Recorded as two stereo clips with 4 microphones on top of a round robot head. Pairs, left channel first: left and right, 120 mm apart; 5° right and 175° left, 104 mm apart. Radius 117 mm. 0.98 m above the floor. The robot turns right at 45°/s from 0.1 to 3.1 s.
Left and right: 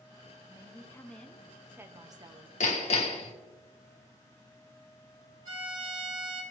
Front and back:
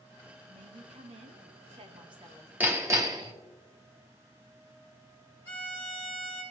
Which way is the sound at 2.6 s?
100° left.